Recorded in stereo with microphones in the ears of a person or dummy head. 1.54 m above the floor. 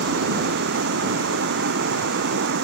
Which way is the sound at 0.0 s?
60° right (ahead or behind).